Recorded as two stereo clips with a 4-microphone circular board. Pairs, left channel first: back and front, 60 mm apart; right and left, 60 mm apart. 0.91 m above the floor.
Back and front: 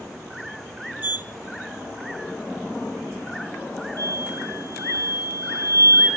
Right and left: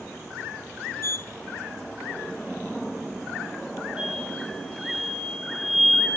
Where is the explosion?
15° left, 7 m.